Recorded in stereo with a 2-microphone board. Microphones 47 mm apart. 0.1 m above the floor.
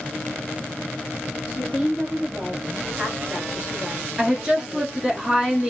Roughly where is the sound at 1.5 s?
Right.